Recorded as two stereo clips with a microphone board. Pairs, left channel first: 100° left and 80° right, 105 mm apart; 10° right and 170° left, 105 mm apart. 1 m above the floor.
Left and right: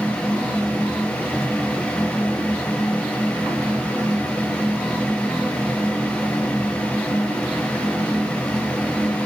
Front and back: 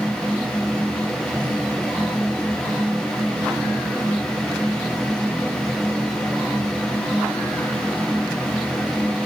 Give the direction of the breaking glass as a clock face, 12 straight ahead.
I don't hear breaking glass.